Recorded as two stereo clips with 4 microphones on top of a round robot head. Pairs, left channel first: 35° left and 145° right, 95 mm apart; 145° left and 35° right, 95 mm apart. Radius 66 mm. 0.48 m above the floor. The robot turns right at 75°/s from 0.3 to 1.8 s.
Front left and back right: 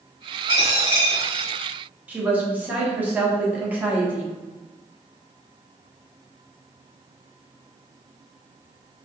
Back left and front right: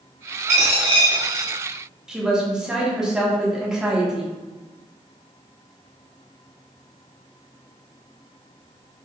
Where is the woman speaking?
105° right, 1.1 m.